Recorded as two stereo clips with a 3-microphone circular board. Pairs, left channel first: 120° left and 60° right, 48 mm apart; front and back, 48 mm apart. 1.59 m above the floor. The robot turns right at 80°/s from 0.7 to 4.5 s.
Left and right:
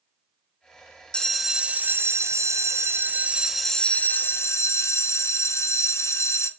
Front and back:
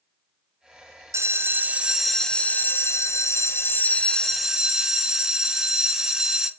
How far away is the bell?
About 0.6 m.